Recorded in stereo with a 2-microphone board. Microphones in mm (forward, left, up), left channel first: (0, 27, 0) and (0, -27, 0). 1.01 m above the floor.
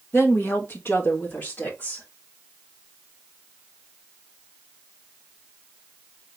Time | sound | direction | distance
0.1 | a woman speaking | 50° left (ahead or behind) | 1.4 m